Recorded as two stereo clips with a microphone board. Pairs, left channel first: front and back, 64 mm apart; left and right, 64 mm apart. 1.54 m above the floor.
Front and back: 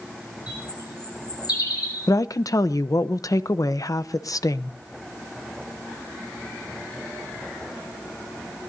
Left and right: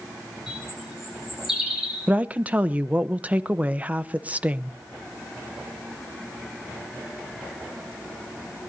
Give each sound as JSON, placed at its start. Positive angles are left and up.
{"t": 0.5, "sound": "a bird", "azimuth_deg": -5, "distance_m": 6.0}
{"t": 2.1, "sound": "a woman speaking", "azimuth_deg": -25, "distance_m": 0.8}